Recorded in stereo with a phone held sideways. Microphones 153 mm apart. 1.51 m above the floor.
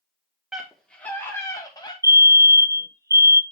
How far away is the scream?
About 1.6 m.